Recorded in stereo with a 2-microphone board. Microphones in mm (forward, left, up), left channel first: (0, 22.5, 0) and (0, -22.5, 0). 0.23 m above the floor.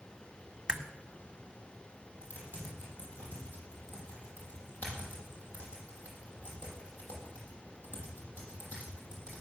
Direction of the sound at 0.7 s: 20° right (ahead or behind).